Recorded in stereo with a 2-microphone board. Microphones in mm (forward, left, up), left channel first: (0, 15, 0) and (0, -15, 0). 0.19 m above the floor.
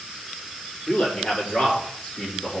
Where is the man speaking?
50° left (ahead or behind), 6.5 m; by 2.6 s 60° left (ahead or behind), 7 m.